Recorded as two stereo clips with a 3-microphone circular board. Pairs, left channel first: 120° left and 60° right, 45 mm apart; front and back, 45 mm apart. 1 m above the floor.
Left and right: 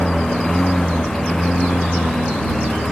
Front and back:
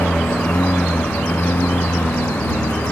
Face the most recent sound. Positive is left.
turn(degrees=40)